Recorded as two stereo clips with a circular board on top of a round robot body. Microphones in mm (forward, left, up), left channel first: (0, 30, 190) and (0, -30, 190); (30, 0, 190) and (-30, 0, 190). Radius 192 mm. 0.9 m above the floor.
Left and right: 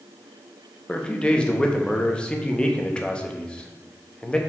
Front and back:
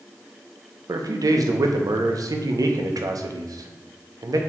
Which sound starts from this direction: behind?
A man speaking, at 0.9 s.